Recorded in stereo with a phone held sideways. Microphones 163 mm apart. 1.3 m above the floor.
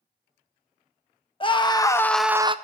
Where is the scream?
35° left (ahead or behind), 1.2 m; by 2.5 s 35° right (ahead or behind), 0.5 m.